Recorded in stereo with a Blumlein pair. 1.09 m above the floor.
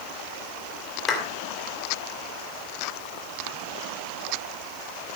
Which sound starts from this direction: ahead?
A clap, at 1.1 s.